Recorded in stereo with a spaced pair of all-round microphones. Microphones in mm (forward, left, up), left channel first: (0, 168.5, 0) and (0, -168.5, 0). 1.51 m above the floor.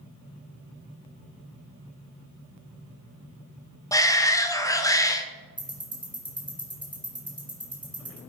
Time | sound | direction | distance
3.9 | a shout | 10° left (ahead or behind) | 0.7 m
5.6 | ticking | 15° right (ahead or behind) | 2.5 m